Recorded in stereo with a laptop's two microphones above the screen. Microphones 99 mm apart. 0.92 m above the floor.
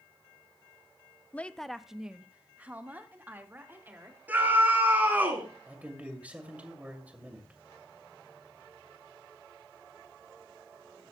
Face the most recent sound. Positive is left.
turn(degrees=-15)  # may be behind; listen again after turning